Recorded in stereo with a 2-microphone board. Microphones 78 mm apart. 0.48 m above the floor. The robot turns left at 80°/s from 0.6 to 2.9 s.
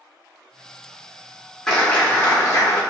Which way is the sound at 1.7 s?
170° left.